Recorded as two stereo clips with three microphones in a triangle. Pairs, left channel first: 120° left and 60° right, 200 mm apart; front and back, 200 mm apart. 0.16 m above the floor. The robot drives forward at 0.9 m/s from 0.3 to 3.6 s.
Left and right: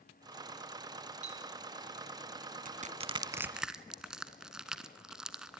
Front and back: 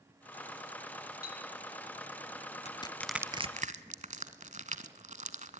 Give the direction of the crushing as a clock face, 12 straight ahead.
1 o'clock.